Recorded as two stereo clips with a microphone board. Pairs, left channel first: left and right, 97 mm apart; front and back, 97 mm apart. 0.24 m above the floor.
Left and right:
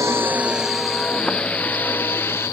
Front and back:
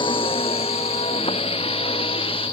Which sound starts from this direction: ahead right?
A vehicle, at 0.0 s.